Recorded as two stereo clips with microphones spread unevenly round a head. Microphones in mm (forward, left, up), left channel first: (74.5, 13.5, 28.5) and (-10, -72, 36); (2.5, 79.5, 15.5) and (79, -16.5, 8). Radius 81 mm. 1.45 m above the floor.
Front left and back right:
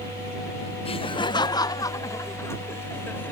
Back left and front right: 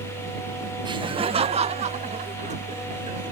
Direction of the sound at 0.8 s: 5° left.